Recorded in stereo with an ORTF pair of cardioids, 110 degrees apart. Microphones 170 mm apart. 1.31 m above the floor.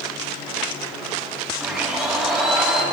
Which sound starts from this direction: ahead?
A blender, at 1.6 s.